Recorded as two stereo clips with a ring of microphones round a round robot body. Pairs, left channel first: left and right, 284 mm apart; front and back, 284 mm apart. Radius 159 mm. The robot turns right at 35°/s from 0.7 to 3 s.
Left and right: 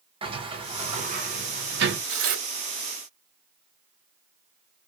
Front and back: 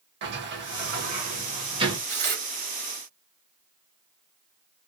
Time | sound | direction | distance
0.2 | a sliding door | 155° right | 1.0 m
2.1 | tearing paper | 135° right | 1.1 m